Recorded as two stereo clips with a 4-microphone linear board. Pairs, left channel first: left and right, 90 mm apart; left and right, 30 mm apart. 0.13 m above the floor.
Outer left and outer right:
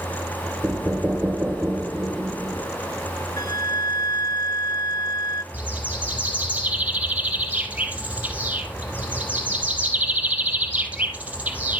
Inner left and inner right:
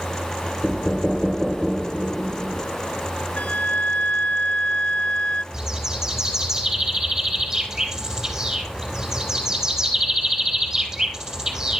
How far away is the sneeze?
No sneeze in this recording.